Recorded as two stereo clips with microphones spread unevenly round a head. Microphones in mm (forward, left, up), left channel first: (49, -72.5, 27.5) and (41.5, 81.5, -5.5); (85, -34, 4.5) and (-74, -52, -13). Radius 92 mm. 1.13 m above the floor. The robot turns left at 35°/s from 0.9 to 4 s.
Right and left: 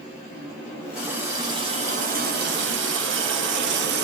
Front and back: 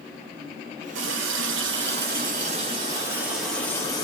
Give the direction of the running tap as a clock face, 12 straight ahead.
6 o'clock.